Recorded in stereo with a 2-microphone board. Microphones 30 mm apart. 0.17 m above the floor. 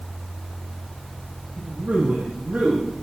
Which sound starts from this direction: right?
A man speaking, at 1.6 s.